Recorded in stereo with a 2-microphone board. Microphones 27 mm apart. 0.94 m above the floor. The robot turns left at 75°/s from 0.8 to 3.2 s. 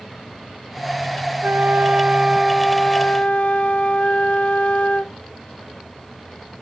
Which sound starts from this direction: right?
A flute, at 1.4 s.